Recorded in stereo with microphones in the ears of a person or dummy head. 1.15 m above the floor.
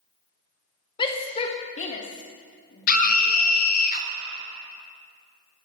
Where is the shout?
25° left (ahead or behind), 1.3 m; by 3.5 s 45° left (ahead or behind), 3 m.